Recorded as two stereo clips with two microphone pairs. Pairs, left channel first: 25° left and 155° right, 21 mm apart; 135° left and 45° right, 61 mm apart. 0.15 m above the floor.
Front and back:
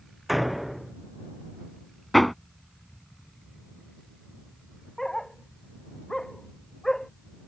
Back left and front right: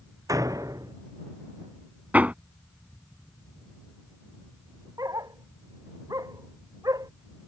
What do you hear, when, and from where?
0.3 s a door slam: 65° right
2.1 s hammering: 50° right
5.0 s a dog barking: 40° right